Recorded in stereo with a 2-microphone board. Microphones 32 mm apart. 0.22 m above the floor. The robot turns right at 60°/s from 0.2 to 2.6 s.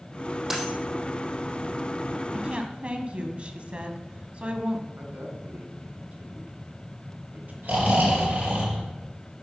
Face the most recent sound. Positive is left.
turn(degrees=-55)  # may be behind; listen again after turning